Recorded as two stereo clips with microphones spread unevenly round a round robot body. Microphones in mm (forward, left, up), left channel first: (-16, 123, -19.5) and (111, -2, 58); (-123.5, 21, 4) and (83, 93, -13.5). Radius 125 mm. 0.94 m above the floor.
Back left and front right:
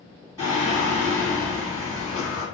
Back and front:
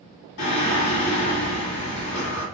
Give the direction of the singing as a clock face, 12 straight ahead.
5 o'clock.